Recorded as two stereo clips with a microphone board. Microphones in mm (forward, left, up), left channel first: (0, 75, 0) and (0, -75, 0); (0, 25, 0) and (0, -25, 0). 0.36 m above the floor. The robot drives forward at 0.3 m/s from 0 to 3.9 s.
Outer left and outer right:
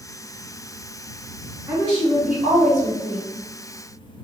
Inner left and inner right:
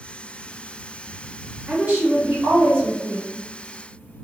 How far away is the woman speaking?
About 1.1 m.